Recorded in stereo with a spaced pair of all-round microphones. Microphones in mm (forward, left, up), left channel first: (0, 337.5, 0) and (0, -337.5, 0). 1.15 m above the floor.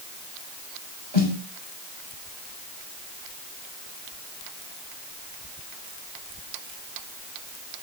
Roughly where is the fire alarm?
No fire alarm in this recording.